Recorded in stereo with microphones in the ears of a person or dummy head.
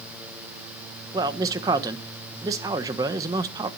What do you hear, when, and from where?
1.1 s a man speaking: 20° right (ahead or behind), 1.0 m